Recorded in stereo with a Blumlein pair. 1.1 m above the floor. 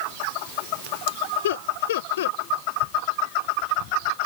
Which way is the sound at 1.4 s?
60° left.